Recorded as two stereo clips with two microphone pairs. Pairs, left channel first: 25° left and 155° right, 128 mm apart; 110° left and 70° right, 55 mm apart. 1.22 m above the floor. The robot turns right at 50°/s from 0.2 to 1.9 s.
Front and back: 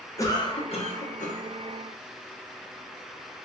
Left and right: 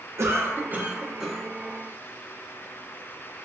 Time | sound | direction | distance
0.2 | a cough | 45° right | 0.9 m